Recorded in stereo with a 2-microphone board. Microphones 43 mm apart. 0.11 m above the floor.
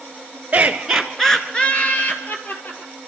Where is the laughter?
30° right (ahead or behind), 1.2 m; by 2.9 s 50° left (ahead or behind), 2.5 m.